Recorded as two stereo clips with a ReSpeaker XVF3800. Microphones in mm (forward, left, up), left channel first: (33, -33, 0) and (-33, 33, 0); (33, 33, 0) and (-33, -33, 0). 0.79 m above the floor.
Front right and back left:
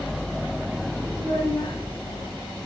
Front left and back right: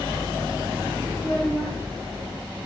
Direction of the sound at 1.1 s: 35° right.